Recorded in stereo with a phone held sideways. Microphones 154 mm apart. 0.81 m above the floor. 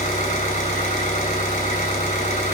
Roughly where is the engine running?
Left.